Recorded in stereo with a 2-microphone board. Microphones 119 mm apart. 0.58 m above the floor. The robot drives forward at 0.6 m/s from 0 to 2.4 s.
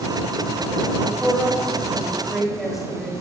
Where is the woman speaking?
5° right (ahead or behind), 3 m.